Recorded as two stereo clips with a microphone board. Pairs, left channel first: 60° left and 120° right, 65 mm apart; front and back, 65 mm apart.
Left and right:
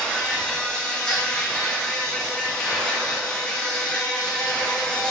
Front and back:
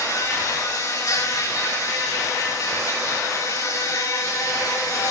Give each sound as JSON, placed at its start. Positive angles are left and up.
{"t": 0.0, "sound": "an insect", "azimuth_deg": -15, "distance_m": 9.5}